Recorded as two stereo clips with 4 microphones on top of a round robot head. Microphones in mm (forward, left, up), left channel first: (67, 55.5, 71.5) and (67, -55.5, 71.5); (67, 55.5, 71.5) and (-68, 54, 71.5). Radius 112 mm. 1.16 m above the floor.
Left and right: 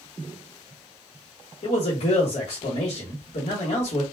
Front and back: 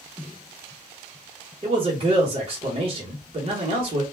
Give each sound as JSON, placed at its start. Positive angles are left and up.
{"t": 1.6, "sound": "a man speaking", "azimuth_deg": 130, "distance_m": 1.0}